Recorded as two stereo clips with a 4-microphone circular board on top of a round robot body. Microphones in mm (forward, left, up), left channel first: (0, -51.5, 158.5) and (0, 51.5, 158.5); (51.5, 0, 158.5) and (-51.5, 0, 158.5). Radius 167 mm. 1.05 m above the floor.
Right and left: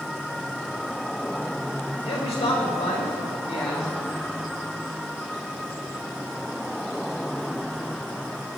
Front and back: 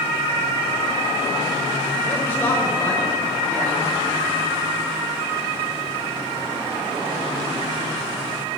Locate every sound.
2.0 s a man speaking: 70° right, 5 m